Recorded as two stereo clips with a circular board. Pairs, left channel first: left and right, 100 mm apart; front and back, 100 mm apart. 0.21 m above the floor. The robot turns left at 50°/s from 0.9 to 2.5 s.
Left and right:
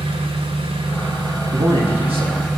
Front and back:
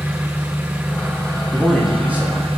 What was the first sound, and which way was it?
An engine running, 105° right.